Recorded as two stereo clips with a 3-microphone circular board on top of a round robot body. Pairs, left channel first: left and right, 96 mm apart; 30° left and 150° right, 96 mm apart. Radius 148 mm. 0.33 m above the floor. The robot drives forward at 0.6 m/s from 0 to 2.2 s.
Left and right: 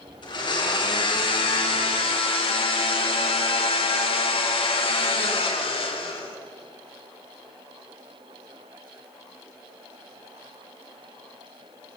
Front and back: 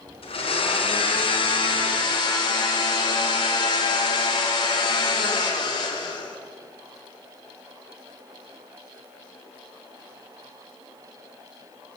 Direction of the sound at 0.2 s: 55° left.